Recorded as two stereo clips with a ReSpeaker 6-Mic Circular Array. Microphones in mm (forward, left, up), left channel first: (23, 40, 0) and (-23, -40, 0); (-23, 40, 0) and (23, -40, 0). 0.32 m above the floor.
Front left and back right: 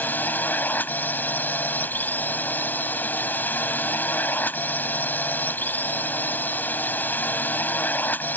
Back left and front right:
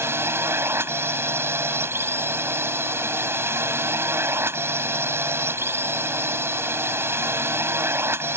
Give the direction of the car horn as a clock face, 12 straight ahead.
I don't hear a car horn.